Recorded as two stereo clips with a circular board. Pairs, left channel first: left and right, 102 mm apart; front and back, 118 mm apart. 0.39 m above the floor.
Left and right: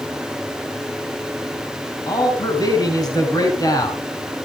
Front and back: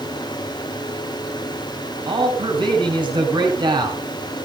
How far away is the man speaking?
About 4 m.